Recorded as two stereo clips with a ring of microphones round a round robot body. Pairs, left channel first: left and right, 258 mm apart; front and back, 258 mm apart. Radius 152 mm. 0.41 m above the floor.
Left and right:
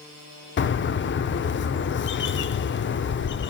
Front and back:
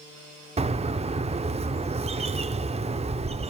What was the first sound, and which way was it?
A bird, 120° left.